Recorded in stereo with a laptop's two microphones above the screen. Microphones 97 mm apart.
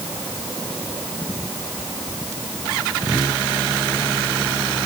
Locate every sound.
Only background noise.